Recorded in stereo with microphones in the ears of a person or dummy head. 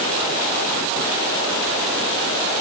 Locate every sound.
Only background noise.